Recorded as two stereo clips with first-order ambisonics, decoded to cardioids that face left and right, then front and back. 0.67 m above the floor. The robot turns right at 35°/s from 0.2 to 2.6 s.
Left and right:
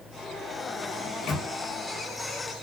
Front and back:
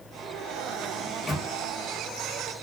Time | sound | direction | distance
1.0 | a microwave | 60° left | 0.8 m